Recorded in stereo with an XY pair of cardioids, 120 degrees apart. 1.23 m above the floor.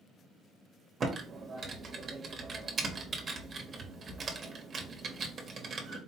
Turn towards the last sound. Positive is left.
turn(degrees=-35)